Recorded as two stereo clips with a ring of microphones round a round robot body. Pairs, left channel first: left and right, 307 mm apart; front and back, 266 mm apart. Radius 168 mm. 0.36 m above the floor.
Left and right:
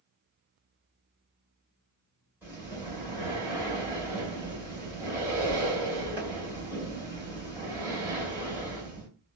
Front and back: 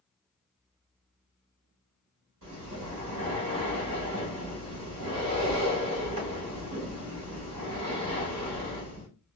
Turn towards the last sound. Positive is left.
turn(degrees=-170)